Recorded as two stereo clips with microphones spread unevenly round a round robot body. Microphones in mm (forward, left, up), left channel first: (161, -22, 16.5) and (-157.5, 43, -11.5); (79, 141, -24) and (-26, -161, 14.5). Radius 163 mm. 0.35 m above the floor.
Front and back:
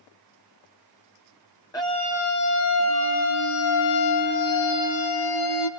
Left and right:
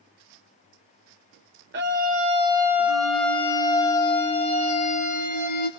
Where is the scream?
90° right, 1.1 m; by 5.7 s 10° left, 3 m.